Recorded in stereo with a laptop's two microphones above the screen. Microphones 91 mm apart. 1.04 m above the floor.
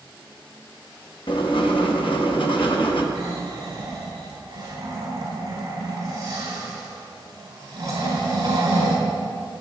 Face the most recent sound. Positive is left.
turn(degrees=-40)  # may be behind; listen again after turning